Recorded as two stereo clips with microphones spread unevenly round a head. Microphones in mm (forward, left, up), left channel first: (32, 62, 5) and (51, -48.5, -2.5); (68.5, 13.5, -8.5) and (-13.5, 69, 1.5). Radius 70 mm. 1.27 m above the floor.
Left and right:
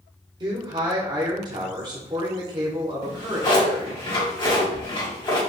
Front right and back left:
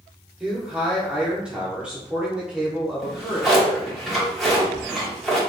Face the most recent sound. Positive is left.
turn(degrees=60)